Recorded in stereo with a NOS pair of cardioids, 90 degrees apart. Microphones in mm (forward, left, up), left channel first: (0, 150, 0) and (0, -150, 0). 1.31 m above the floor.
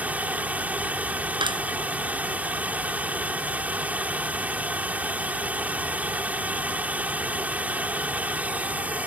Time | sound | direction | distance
0.0 | running water | 5° right | ?
1.4 | a clap | 15° right | ?